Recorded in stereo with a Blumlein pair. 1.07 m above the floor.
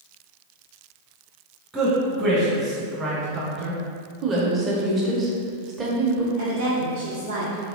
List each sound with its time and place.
1.7 s a man speaking: 15° right, 1.0 m
4.2 s a woman speaking: 20° right, 0.6 m
6.4 s a woman speaking: 65° right, 0.7 m